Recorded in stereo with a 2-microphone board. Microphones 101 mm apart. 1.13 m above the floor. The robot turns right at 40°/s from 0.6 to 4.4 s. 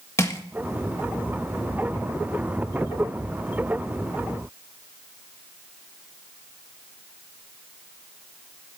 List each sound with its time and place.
0.2 s crushing: 30° left (ahead or behind), 1.7 m